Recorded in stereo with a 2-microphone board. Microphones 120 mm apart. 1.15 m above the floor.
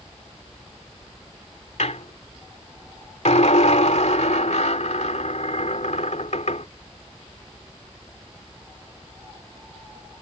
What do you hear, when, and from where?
1.8 s a squeak: 75° left (ahead or behind)